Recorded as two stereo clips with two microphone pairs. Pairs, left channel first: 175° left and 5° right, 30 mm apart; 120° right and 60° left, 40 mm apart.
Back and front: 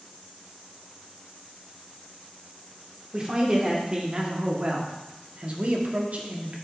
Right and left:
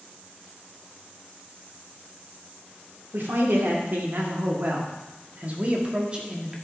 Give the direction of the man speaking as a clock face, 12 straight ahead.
10 o'clock.